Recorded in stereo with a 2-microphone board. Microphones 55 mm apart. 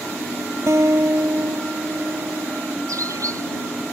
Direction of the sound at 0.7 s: 65° right (ahead or behind).